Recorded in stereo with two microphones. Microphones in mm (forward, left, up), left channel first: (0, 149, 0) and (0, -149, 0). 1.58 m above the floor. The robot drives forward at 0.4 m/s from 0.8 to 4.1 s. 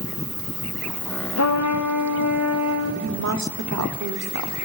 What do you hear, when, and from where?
1.4 s a trumpet: 60° left (ahead or behind), 0.5 m; by 2.9 s 50° left (ahead or behind), 0.6 m
3.0 s a woman speaking: 55° right (ahead or behind), 0.7 m; by 4.6 s 85° right, 0.6 m